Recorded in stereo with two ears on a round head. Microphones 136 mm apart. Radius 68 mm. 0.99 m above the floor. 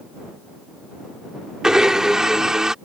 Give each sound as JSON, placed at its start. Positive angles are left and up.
{"t": 1.6, "sound": "a blender", "side_deg": -5}